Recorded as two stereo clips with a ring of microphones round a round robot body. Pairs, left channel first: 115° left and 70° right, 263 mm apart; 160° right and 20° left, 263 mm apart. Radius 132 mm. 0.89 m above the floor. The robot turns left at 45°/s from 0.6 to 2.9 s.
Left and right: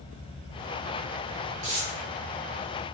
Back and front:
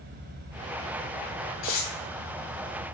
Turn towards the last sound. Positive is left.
turn(degrees=175)